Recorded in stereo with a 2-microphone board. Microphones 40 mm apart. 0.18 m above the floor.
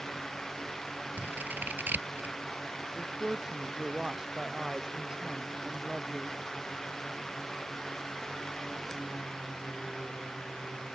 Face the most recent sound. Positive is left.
turn(degrees=-15)  # may be behind; listen again after turning